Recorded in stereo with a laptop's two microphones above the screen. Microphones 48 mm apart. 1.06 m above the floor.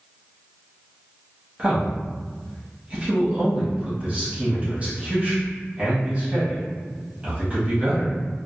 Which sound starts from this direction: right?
A man speaking, at 1.6 s.